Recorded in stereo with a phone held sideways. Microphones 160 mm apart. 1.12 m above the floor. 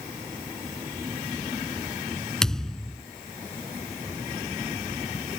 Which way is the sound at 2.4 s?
5° left (ahead or behind).